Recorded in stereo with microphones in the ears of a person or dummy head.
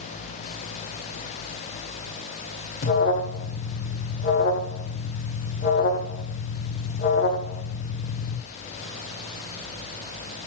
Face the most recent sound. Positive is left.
turn(degrees=55)  # may be behind; listen again after turning